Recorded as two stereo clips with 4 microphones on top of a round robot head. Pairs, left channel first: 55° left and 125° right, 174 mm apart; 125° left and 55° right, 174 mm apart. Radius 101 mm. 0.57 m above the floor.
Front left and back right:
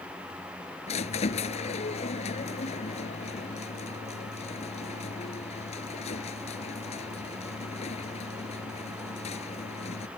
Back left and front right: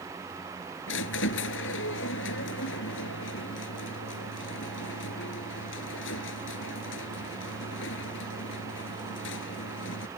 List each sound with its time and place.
0.9 s a squeak: 110° left